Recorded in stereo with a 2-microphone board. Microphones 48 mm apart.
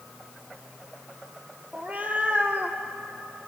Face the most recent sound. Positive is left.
turn(degrees=-35)  # may be behind; listen again after turning